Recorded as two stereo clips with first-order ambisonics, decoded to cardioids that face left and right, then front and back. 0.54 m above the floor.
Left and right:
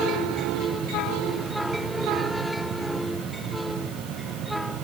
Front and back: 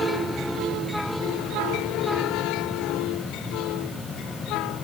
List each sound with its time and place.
Only background noise.